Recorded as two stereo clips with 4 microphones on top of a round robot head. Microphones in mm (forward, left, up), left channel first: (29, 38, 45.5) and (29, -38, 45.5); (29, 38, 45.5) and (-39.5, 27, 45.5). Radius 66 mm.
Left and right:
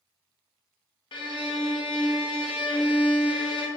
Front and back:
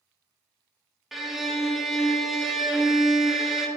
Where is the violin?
100° left, 0.5 m.